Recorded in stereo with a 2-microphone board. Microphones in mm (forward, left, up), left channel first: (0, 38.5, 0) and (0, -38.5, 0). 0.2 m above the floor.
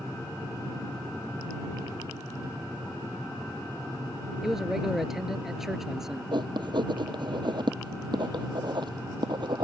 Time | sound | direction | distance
4.4 | a man speaking | 5° right (ahead or behind) | ?
6.3 | writing | 80° right | ?